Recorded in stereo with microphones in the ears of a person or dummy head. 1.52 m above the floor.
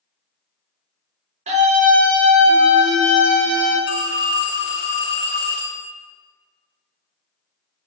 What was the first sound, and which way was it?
A scream, 40° right (ahead or behind).